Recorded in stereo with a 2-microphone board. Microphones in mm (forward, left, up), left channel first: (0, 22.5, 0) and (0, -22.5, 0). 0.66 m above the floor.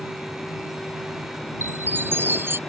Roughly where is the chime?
Right.